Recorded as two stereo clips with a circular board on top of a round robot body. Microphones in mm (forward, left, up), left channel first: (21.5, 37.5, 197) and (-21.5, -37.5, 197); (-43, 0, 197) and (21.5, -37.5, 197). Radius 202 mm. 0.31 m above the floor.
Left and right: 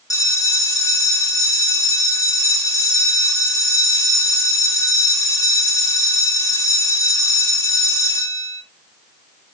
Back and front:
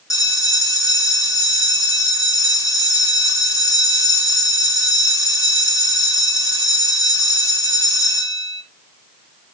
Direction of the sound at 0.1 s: 110° left.